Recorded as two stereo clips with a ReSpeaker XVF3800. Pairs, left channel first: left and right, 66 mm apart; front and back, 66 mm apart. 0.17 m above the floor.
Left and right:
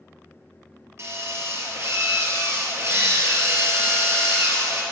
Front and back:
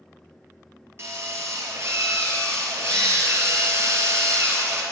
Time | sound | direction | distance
1.0 | a drill | 135° right | 1.9 m